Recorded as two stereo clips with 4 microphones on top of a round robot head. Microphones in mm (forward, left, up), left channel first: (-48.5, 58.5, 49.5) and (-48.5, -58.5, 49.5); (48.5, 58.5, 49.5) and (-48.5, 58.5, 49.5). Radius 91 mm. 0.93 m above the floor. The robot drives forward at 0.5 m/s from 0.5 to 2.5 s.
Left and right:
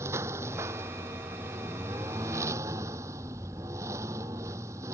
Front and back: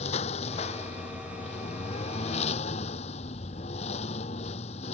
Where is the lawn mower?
20° right.